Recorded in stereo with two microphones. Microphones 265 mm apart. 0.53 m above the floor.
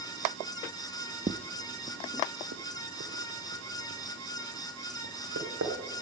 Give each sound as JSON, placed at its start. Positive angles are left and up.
{"t": 1.3, "sound": "footsteps", "side_deg": -30, "distance_m": 0.8}